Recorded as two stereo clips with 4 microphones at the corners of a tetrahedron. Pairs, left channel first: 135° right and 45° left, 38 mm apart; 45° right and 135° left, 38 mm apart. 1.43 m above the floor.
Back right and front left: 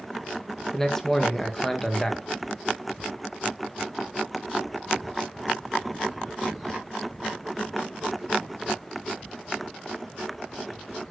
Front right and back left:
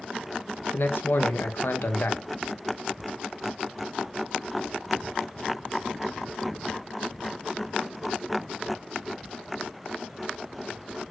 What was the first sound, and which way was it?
A man speaking, 55° right.